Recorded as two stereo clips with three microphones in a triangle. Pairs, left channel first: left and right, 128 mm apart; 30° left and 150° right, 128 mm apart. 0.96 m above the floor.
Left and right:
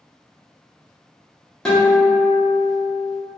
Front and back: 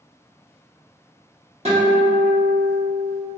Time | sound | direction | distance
1.6 | a guitar | 175° left | 1.0 m